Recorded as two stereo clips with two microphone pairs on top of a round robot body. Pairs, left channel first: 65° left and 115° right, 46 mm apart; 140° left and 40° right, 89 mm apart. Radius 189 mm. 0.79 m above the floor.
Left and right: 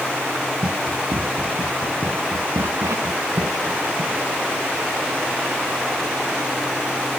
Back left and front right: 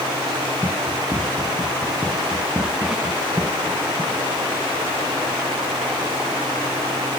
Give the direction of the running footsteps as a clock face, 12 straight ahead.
4 o'clock.